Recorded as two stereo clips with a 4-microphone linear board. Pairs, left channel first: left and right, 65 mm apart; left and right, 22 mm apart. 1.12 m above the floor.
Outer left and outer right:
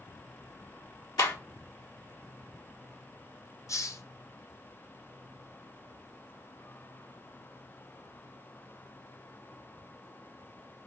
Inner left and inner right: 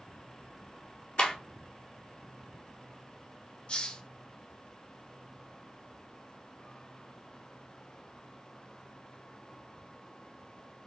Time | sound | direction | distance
1.2 | a clap | 85° left | 1.9 m
3.7 | a hiss | 50° left (ahead or behind) | 0.6 m